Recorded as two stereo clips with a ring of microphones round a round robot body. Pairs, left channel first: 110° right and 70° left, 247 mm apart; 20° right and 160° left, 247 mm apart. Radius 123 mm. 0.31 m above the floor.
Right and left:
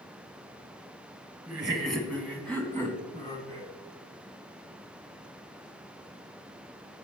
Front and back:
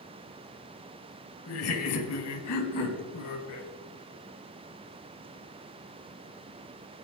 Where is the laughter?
15° right, 2 m; by 3.7 s 40° right, 3.5 m.